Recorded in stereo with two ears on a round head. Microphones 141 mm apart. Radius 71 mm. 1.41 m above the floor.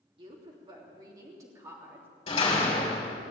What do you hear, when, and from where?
0.2 s a woman speaking: 35° right (ahead or behind), 3 m; by 2.1 s 15° right (ahead or behind), 3.5 m
2.3 s a door slam: 35° left (ahead or behind), 4 m